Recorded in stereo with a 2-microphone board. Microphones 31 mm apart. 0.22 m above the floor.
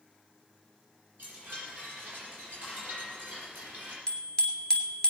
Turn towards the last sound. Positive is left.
turn(degrees=25)  # may be behind; listen again after turning